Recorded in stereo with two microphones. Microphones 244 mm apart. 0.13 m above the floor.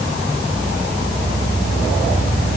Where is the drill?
I don't hear a drill.